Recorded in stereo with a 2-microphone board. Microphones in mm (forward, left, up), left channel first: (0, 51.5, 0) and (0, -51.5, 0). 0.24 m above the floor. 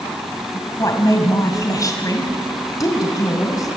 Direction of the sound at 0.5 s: 35° left (ahead or behind).